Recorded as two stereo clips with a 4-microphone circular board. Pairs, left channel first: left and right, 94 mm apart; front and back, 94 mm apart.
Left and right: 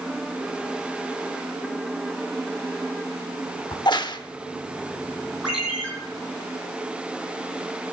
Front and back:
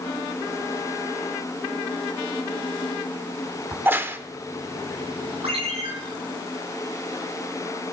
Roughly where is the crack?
Behind left.